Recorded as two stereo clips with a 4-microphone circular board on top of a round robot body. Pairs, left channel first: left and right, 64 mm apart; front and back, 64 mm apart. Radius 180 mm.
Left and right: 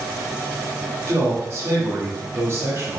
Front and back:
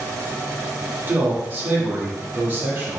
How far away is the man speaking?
About 1.5 m.